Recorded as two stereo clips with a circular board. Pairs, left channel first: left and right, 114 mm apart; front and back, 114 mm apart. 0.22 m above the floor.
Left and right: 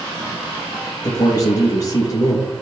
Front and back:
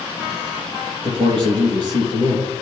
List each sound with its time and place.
1.0 s a man speaking: 145° left, 4.5 m